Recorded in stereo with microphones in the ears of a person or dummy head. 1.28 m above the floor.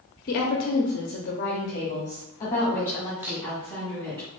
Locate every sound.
0.3 s a woman speaking: 45° left (ahead or behind), 0.7 m; by 4.2 s 10° left (ahead or behind), 3 m
3.2 s a camera shutter: 15° right (ahead or behind), 0.8 m